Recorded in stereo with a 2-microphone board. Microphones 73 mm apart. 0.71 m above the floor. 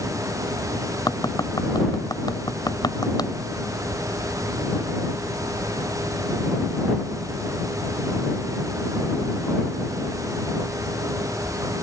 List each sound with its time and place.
1.1 s tapping: 70° left (ahead or behind)